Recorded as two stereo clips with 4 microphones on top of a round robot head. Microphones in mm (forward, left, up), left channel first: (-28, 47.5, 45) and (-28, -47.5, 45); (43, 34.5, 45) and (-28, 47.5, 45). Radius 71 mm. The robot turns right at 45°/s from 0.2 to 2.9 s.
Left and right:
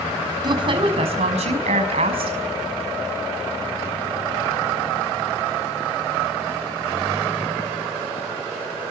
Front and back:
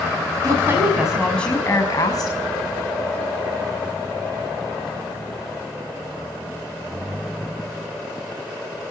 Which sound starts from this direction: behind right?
A woman speaking, at 0.4 s.